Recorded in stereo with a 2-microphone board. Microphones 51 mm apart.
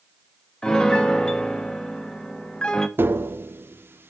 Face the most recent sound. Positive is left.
turn(degrees=-45)  # may be behind; listen again after turning